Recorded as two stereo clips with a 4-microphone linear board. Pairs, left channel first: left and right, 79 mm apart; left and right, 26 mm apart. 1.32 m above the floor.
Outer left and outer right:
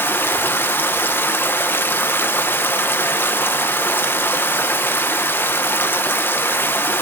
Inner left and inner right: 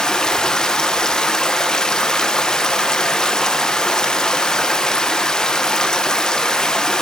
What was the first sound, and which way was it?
Running water, 25° left (ahead or behind).